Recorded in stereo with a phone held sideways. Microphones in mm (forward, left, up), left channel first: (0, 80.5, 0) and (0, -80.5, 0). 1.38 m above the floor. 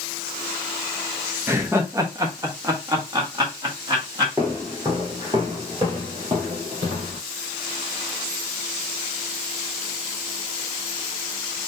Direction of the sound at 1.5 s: 15° right (ahead or behind).